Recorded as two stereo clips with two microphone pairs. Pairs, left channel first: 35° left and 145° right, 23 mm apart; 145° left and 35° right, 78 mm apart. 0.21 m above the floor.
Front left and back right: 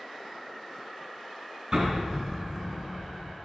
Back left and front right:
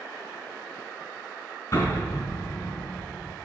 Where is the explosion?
165° left, 2.5 m.